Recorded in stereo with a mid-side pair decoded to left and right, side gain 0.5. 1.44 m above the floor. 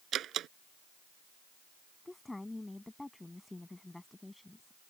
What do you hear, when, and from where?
0.1 s a door slam: 60° right
2.0 s a woman speaking: 10° left